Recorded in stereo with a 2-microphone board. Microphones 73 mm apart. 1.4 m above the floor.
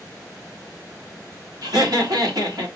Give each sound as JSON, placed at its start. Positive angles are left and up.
{"t": 1.6, "sound": "laughter", "side_deg": -70, "distance_m": 2.5}